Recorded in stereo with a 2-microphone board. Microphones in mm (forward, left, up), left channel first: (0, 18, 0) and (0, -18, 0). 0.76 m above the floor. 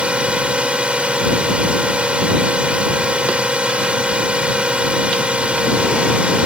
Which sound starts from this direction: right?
A drone, at 0.0 s.